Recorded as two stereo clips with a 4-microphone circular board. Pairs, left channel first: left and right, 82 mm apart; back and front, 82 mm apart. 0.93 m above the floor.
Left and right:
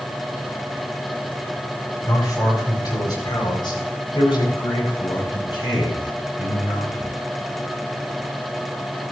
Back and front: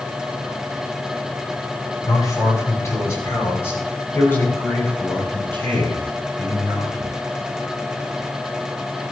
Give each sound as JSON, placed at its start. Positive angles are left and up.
{"t": 2.1, "sound": "a man speaking", "azimuth_deg": 135, "distance_m": 4.5}